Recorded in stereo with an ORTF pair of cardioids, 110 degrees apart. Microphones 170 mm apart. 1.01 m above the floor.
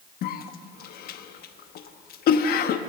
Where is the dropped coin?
No dropped coin in this recording.